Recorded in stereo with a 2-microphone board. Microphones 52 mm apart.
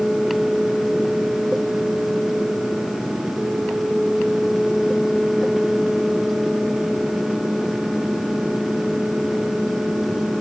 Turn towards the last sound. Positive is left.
No sound to turn to.